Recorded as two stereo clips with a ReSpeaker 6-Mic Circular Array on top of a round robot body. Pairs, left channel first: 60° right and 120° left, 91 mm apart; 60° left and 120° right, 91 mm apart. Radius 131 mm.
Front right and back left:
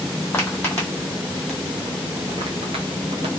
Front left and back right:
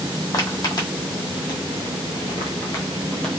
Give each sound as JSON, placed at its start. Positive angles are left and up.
{"t": 0.3, "sound": "footsteps", "azimuth_deg": 10, "distance_m": 1.7}